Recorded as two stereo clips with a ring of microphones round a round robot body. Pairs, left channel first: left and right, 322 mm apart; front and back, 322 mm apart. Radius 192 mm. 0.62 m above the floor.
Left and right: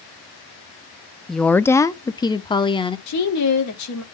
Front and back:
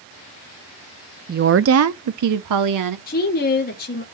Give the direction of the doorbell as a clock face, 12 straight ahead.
No doorbell in this recording.